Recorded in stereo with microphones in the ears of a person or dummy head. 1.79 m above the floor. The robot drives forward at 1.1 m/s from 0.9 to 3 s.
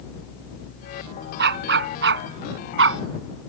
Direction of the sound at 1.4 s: 60° right (ahead or behind).